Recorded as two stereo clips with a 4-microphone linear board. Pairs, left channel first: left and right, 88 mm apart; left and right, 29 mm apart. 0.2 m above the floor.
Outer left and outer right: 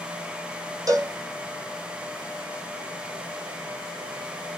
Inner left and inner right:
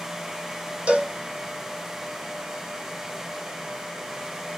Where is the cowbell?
40° right (ahead or behind), 1.1 m.